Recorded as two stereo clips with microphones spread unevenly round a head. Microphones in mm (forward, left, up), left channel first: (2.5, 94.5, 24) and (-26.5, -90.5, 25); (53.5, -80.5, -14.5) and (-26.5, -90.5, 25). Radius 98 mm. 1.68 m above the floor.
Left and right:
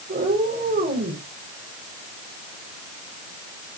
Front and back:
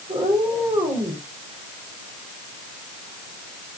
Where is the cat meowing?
145° right, 4.5 m.